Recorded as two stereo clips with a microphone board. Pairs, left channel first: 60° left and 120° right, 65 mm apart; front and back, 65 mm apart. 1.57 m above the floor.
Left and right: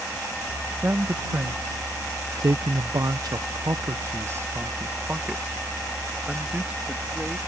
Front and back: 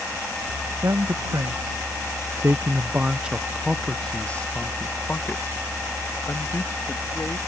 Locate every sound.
0.8 s a man speaking: 175° right; by 7.4 s 45° right